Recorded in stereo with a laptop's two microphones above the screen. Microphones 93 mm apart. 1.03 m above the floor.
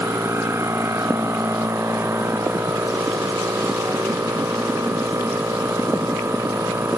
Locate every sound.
0.0 s a machine running: 30° right (ahead or behind)